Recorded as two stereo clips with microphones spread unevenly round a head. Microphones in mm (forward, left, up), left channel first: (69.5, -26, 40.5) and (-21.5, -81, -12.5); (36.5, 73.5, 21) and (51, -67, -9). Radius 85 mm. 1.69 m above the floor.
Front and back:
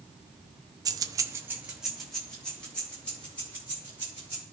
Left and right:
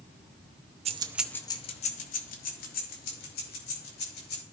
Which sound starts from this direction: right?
Keys jangling, at 0.8 s.